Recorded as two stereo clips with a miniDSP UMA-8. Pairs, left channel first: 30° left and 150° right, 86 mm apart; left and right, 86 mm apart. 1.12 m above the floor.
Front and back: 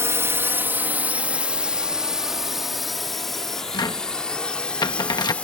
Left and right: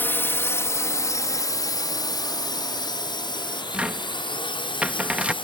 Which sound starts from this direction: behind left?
A drone, at 0.0 s.